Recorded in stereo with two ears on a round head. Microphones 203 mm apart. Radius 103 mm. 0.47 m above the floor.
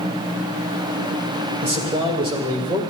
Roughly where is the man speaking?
Right.